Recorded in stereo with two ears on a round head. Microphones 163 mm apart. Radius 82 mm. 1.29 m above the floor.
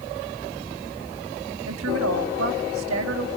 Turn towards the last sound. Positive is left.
turn(degrees=-85)